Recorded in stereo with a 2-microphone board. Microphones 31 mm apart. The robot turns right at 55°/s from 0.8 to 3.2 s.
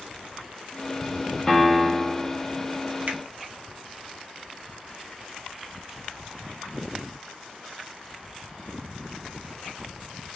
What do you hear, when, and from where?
1.5 s a piano: 160° left, 0.7 m; by 2.4 s 150° right, 0.7 m
3.1 s a finger snap: 60° right (ahead or behind), 0.8 m; by 3.2 s 55° right (ahead or behind), 0.8 m